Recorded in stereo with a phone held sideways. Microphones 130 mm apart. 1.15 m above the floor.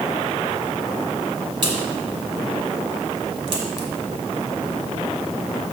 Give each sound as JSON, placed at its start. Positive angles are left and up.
{"t": 1.6, "sound": "a crack", "side_deg": -40, "distance_m": 1.6}